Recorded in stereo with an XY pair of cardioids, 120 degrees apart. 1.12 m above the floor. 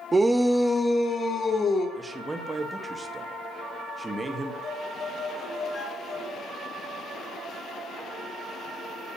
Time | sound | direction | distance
0.1 | a shout | 20° right | 1.1 m
1.9 | a man speaking | 20° right | 1.4 m
4.6 | a violin | 40° left | 6 m